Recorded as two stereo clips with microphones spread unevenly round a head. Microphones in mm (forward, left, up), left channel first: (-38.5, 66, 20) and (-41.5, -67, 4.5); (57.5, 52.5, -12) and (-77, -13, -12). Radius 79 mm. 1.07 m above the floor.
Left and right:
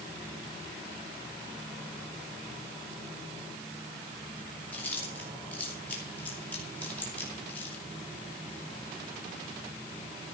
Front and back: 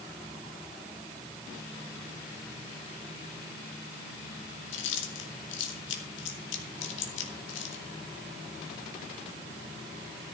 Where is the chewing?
10° left, 2.5 m.